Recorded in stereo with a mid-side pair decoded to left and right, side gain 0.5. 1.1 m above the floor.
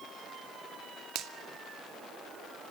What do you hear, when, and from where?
1.1 s a finger snap: 70° right, 2 m